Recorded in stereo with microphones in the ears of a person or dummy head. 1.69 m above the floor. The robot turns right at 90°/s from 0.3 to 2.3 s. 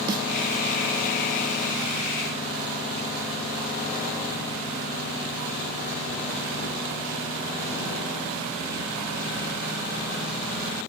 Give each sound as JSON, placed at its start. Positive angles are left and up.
{"t": 0.1, "sound": "a snare drum", "side_deg": -20}